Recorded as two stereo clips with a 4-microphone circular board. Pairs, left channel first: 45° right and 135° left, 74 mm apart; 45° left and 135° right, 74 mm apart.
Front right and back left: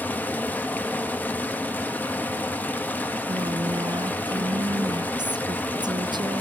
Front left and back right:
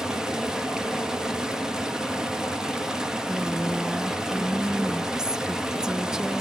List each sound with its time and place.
0.0 s running water: 65° right, 0.9 m
3.3 s a woman speaking: 145° left, 0.5 m